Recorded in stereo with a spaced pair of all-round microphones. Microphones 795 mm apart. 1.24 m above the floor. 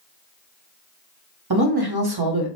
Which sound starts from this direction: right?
A woman speaking, at 1.5 s.